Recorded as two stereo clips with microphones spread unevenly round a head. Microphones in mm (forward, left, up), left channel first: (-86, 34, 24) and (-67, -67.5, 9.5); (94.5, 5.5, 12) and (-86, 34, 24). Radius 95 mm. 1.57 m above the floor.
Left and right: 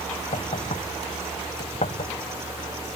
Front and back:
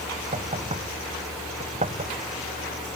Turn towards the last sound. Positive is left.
turn(degrees=115)